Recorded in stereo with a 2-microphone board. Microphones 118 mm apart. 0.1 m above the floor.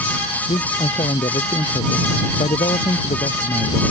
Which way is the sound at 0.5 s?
65° left (ahead or behind).